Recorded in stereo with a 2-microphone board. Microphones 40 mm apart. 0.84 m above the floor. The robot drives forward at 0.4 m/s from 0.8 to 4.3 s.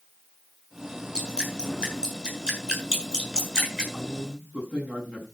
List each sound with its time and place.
1.1 s dripping: 20° right (ahead or behind), 7 m
3.9 s a man speaking: 30° right (ahead or behind), 6 m